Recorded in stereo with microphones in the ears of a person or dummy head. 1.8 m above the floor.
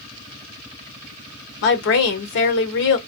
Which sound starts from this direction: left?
A woman speaking, at 1.6 s.